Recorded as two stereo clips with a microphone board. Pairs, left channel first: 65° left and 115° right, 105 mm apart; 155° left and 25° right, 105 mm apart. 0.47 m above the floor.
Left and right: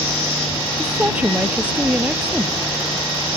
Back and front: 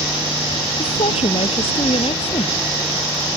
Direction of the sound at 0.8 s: 170° left.